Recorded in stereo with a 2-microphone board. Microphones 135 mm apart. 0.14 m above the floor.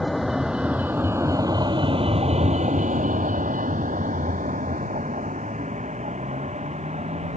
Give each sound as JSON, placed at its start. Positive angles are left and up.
{"t": 0.0, "sound": "a vehicle", "side_deg": 0}